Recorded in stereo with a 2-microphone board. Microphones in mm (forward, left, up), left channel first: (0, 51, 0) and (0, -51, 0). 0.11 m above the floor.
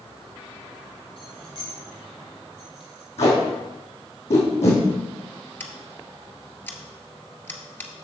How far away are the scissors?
About 1.0 m.